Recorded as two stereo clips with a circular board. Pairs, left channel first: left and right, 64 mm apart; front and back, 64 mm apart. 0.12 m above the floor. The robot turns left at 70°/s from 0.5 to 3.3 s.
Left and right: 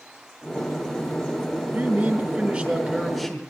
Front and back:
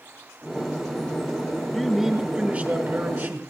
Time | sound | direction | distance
1.7 | a man speaking | 90° right | 1.7 m